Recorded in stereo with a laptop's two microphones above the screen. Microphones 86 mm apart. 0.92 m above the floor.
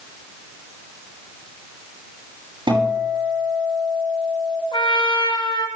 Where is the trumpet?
85° left, 6.5 m.